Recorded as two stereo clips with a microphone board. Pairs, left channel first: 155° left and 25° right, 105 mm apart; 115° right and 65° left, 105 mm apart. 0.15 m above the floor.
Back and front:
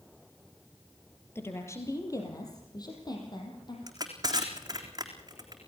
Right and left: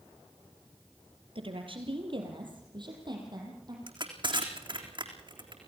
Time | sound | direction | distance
1.4 | a woman speaking | 90° left | 4 m
3.9 | crushing | 30° left | 4 m